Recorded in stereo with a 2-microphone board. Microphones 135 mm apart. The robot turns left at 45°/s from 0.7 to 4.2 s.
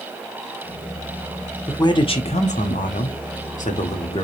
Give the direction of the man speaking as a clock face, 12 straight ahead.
7 o'clock.